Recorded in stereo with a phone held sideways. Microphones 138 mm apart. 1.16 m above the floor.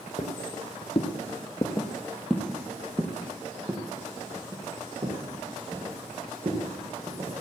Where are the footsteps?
55° left (ahead or behind), 2 m; by 7.3 s 50° right (ahead or behind), 5 m.